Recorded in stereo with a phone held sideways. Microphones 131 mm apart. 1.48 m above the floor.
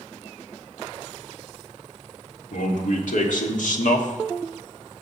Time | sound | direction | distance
2.5 | a man speaking | 75° left (ahead or behind) | 1.9 m